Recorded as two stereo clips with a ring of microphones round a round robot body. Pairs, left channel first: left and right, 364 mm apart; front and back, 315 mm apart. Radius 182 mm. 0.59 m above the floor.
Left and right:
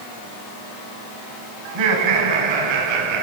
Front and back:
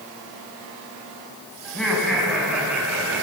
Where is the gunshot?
No gunshot in this recording.